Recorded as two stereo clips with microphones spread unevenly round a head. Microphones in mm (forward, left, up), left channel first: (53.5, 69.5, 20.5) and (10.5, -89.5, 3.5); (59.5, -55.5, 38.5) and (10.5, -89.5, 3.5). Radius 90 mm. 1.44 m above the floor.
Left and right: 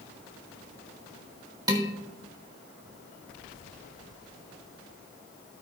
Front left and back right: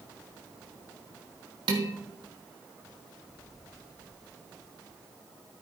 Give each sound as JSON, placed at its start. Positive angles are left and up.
{"t": 1.7, "sound": "dishes clattering", "azimuth_deg": -175, "distance_m": 1.0}